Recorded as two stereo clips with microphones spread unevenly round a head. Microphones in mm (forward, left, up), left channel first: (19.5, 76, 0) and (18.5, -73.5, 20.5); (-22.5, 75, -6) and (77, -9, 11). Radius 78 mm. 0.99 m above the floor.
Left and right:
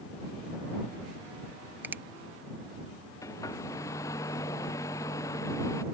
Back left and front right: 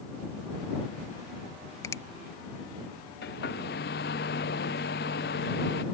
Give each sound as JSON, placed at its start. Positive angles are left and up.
{"t": 1.8, "sound": "a finger snap", "azimuth_deg": -175}
{"t": 3.2, "sound": "a hair dryer", "azimuth_deg": 165}